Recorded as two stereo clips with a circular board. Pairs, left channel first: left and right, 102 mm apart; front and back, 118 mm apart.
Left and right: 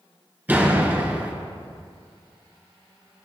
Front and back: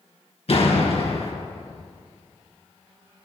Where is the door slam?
20° right, 2.5 m.